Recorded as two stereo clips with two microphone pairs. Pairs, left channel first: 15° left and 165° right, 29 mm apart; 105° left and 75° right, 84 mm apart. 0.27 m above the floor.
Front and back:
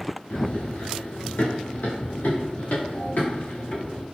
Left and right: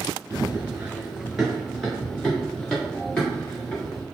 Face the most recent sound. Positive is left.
turn(degrees=40)